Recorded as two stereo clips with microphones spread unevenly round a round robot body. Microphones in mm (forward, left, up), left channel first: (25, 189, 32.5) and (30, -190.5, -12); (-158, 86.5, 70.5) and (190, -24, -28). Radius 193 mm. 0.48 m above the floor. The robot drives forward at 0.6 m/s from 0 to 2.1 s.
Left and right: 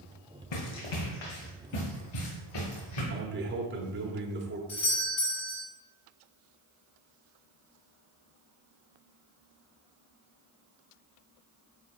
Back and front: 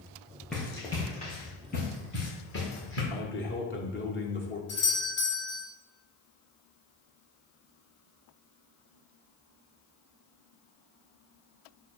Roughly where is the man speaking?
Behind right.